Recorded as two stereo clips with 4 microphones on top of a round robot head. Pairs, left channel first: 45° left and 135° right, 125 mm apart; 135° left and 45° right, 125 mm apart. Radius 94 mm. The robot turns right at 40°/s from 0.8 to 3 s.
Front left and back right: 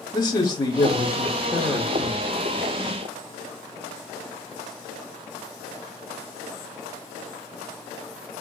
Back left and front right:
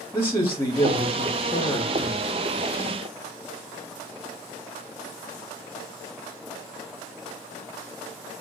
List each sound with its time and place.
0.1 s a man speaking: 80° left, 1.1 m; by 2.3 s 135° left, 1.1 m